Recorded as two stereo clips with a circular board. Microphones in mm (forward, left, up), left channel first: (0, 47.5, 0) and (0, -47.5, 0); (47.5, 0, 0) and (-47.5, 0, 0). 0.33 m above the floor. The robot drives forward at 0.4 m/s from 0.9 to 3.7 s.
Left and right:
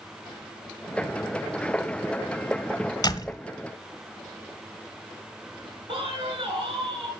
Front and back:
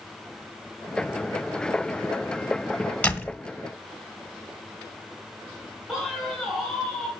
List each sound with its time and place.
3.0 s a door slam: 70° left, 1.3 m; by 3.4 s 75° left, 1.3 m
5.9 s a man speaking: 95° right, 3.5 m